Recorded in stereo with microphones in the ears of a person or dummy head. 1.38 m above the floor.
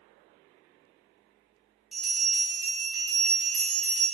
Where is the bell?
Centre (ahead or behind), 0.7 m.